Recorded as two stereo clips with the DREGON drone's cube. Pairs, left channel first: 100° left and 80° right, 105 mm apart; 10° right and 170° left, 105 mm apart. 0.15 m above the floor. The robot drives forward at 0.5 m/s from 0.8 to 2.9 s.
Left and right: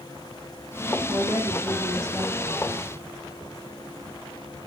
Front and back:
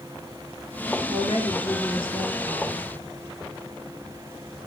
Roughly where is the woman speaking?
Ahead.